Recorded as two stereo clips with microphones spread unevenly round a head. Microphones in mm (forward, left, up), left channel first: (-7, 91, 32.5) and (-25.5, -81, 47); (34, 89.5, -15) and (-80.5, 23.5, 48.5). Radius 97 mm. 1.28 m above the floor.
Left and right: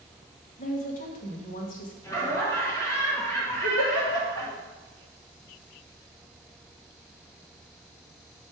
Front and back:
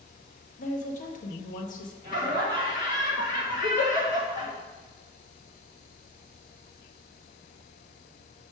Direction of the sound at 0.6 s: 35° left.